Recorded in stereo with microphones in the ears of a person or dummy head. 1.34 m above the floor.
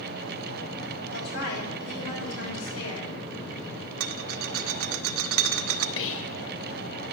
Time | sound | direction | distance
1.1 | a woman speaking | 70° left (ahead or behind) | 6.5 m
4.0 | a rattle | 80° right | 0.8 m
6.0 | whispering | 75° left (ahead or behind) | 1.1 m